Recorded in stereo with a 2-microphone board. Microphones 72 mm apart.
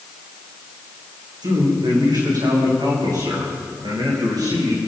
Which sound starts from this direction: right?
A man speaking, at 1.4 s.